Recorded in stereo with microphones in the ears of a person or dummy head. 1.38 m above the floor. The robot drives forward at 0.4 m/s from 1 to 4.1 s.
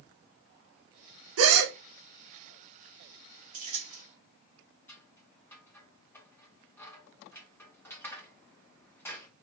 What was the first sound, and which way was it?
A gasp, 85° right.